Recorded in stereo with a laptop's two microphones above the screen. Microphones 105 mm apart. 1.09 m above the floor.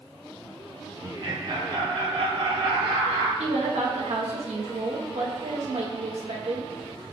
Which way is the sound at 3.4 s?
85° right.